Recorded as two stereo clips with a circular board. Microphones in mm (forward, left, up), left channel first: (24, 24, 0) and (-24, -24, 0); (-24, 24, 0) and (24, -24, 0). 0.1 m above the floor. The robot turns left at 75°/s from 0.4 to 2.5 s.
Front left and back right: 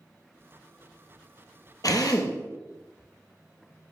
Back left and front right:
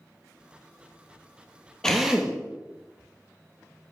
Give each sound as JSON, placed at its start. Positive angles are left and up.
{"t": 1.8, "sound": "a drill", "azimuth_deg": 55, "distance_m": 1.9}